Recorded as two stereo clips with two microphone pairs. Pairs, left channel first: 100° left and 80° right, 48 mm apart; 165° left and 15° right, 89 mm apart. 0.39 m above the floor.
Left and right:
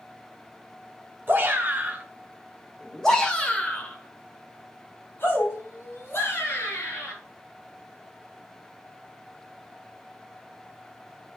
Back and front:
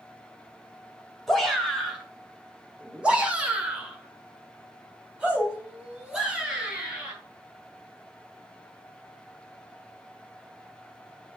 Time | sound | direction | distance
1.3 | a shout | 105° right | 1.7 m